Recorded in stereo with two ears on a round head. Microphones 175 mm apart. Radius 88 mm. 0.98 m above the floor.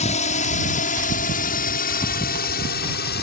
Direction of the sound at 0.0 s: 40° left (ahead or behind).